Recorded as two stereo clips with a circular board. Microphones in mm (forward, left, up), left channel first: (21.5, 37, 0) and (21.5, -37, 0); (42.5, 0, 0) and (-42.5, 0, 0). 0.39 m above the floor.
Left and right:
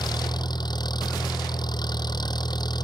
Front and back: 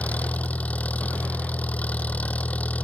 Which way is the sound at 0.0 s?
75° left.